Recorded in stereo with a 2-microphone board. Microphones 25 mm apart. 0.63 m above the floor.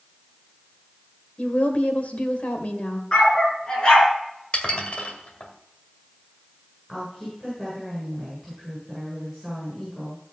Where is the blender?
No blender in this recording.